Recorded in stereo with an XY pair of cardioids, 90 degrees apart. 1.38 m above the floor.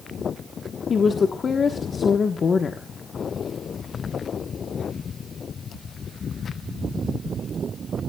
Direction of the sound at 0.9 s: 45° left.